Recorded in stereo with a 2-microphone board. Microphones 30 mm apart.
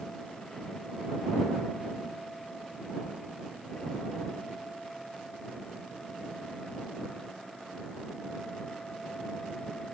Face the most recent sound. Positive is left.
No sound to turn to.